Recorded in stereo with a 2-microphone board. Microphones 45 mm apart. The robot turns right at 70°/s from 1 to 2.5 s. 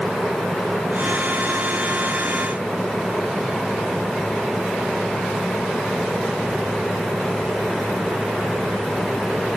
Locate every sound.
Only background noise.